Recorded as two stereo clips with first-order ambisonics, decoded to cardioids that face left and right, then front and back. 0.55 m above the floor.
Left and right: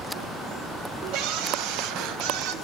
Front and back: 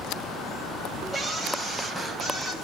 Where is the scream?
85° right, 3.5 m; by 2.5 s 80° right, 4.5 m.